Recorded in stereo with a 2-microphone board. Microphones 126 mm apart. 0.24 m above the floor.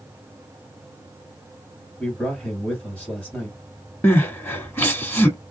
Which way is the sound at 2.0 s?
10° left (ahead or behind).